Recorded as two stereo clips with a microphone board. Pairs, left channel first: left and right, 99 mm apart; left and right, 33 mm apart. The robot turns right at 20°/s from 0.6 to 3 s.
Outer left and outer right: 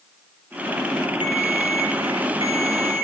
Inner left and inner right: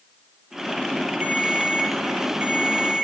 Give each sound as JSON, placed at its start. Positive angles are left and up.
{"t": 1.2, "sound": "a ringtone", "azimuth_deg": -60, "distance_m": 2.5}